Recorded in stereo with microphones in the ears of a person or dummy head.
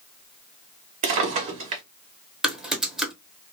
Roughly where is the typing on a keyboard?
Centre.